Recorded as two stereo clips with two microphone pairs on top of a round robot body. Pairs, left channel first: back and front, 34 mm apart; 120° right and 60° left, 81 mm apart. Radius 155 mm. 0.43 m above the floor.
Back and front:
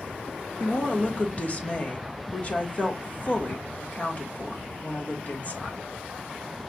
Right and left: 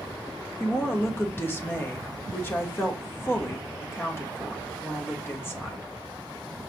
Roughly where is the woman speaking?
Behind.